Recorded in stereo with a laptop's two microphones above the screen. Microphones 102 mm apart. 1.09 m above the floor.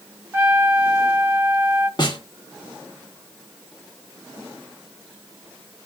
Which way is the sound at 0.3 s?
20° right (ahead or behind).